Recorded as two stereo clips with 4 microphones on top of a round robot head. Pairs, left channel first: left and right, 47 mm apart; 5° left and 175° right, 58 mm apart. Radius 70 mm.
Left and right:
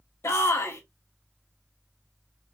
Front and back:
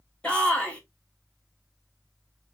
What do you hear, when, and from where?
0.2 s a shout: 75° left, 1.5 m